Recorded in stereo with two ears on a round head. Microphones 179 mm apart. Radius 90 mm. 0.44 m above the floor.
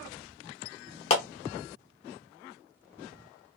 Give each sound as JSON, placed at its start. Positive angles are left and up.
{"t": 1.1, "sound": "a clap", "side_deg": 30, "distance_m": 0.9}